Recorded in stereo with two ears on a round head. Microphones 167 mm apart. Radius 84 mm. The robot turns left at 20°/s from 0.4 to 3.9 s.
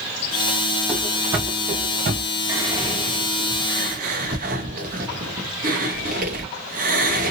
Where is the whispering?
15° right (ahead or behind), 1.3 m; by 7.3 s 45° right (ahead or behind), 1.3 m.